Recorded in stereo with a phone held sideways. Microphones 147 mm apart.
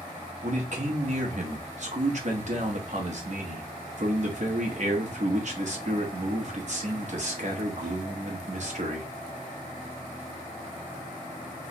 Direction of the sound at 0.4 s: 55° right (ahead or behind).